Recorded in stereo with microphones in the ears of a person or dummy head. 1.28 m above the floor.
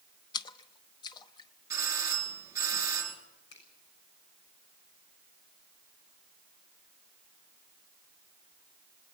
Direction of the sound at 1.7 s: 20° right (ahead or behind).